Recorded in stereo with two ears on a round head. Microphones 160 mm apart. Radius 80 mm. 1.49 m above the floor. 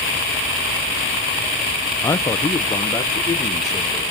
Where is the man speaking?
15° left (ahead or behind), 0.7 m; by 4.1 s 20° left (ahead or behind), 2.5 m.